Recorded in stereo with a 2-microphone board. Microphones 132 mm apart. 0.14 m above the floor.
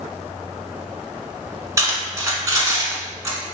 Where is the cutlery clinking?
25° right (ahead or behind), 0.9 m.